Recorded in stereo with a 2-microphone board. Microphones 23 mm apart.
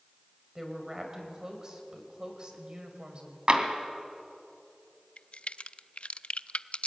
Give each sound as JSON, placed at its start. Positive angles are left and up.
{"t": 0.6, "sound": "a woman speaking", "side_deg": -20, "distance_m": 4.0}
{"t": 3.5, "sound": "tapping", "side_deg": -40, "distance_m": 2.5}
{"t": 5.2, "sound": "a crack", "side_deg": 60, "distance_m": 0.5}